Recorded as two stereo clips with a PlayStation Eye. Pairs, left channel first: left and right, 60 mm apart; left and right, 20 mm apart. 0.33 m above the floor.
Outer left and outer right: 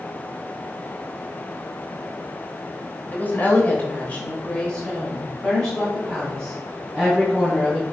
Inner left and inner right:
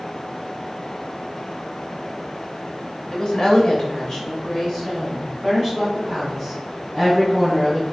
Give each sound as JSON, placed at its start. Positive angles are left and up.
{"t": 3.1, "sound": "a woman speaking", "side_deg": 30, "distance_m": 1.2}